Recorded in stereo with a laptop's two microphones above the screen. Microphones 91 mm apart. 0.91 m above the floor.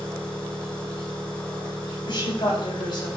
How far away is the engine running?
About 1.8 m.